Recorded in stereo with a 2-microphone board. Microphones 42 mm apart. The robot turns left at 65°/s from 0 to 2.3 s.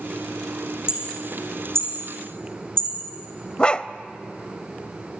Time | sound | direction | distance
0.9 | hammering | 20° right (ahead or behind) | 7 m
3.6 | a dog barking | 20° left (ahead or behind) | 0.7 m